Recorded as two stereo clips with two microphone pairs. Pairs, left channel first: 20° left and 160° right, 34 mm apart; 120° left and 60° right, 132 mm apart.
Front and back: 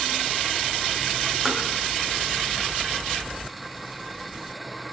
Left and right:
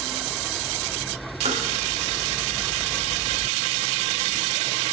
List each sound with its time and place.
1.4 s tapping: 80° right, 3 m